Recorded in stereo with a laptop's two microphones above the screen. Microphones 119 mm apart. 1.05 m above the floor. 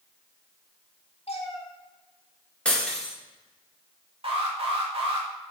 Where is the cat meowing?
60° left (ahead or behind), 1.7 m.